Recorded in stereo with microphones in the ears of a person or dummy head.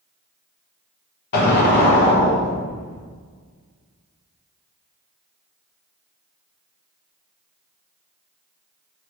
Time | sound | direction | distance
1.3 | an explosion | 55° left (ahead or behind) | 1.1 m